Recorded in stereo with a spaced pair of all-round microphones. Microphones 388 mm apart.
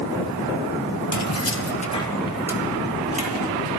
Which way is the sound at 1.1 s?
50° left (ahead or behind).